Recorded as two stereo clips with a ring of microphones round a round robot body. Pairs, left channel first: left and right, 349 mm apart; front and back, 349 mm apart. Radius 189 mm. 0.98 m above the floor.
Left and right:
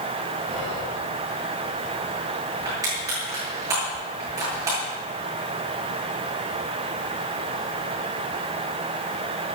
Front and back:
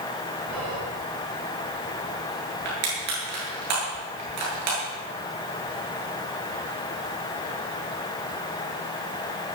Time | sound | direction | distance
0.5 | whispering | 175° right | 5.5 m
2.6 | crushing | 170° right | 8.5 m